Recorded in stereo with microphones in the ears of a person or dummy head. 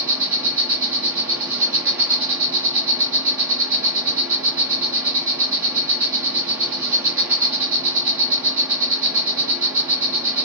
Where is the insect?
5° right (ahead or behind), 0.7 m.